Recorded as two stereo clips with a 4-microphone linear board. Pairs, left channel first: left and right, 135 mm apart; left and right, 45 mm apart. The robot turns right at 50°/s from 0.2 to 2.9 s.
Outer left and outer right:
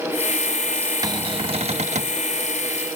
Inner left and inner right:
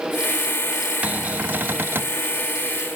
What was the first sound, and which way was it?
A cupboard door, 145° right.